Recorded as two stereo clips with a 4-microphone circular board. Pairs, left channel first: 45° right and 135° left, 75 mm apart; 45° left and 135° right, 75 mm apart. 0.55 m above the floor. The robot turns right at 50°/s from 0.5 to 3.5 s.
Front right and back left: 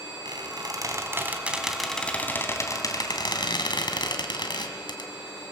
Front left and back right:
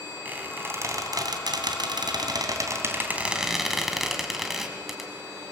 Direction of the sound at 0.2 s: 160° left.